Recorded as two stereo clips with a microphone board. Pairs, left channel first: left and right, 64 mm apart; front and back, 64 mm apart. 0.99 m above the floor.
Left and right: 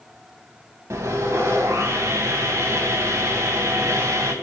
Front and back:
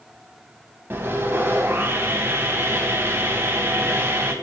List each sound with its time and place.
0.9 s sawing: 125° right, 3 m